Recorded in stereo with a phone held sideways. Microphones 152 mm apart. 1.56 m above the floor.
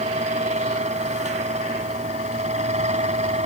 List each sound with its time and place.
0.0 s a fan: 50° right (ahead or behind)